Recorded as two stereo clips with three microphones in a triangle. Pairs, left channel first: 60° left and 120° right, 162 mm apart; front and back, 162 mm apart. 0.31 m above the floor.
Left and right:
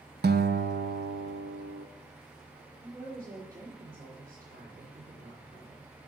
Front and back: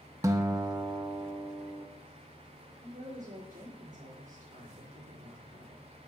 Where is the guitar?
110° right, 0.5 m.